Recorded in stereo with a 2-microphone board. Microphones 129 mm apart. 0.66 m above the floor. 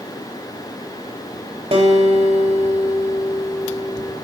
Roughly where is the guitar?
Right.